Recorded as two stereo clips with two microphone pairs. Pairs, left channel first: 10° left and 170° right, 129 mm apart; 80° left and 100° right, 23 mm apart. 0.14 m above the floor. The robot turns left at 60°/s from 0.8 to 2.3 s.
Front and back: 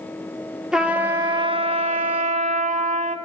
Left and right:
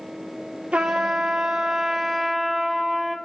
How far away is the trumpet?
About 0.7 m.